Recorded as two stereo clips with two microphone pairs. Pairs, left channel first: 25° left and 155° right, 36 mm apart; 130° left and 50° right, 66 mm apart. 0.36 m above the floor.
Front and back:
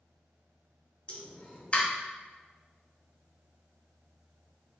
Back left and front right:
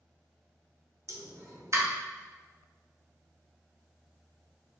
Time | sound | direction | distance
1.1 | a pop | 20° right | 2 m